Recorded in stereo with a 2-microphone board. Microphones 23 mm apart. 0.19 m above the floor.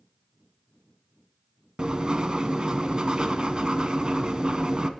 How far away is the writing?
About 0.5 m.